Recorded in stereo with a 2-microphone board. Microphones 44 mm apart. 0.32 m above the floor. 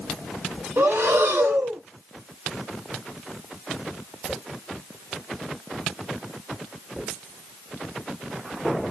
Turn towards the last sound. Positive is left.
turn(degrees=-65)  # may be behind; listen again after turning